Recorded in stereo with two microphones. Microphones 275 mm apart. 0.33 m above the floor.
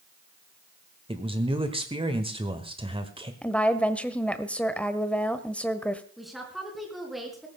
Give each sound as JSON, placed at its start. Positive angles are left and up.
{"t": 1.1, "sound": "a man speaking", "side_deg": -20, "distance_m": 1.3}
{"t": 3.4, "sound": "a woman speaking", "side_deg": 5, "distance_m": 1.1}
{"t": 6.2, "sound": "a woman speaking", "side_deg": 0, "distance_m": 4.5}